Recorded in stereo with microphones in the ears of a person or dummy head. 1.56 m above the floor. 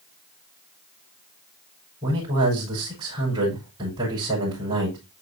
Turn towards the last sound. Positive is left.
turn(degrees=-20)  # may be behind; listen again after turning